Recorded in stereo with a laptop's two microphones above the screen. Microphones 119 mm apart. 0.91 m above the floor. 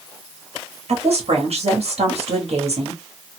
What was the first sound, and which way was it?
A woman speaking, 65° right (ahead or behind).